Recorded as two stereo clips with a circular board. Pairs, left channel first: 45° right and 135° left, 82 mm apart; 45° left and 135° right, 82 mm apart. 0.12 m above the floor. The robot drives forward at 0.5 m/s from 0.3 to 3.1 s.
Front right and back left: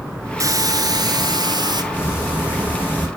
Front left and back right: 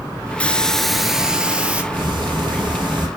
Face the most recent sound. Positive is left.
turn(degrees=-155)